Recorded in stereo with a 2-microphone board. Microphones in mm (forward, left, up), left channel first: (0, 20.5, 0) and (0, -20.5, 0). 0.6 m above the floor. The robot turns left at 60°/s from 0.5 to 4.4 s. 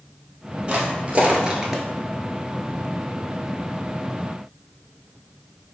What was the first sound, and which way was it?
Footsteps, 30° right (ahead or behind).